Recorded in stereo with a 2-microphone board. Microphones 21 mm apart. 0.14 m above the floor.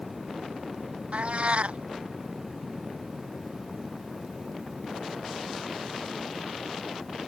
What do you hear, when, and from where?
1.1 s a cat meowing: 80° right